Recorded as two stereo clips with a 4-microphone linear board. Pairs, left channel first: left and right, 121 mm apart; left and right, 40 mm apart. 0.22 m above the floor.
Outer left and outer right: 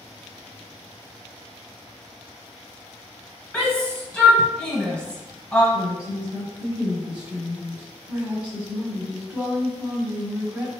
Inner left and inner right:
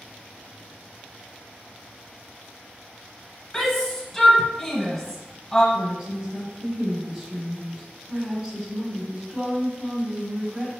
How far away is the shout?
About 1.5 m.